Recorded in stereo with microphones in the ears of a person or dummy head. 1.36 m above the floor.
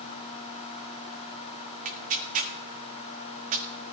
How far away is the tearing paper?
About 1.1 m.